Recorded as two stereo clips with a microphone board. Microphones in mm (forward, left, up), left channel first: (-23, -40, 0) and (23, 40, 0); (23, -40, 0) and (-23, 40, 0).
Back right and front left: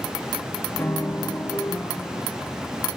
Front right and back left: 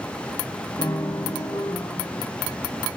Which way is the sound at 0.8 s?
65° right.